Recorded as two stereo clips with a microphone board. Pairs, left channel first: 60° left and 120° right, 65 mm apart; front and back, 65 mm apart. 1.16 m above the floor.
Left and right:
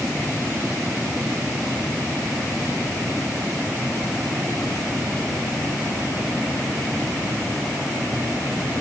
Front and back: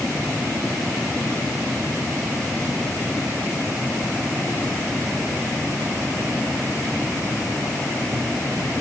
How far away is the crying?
No crying in this recording.